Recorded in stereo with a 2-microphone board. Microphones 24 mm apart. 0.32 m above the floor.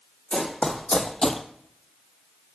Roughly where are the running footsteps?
Left.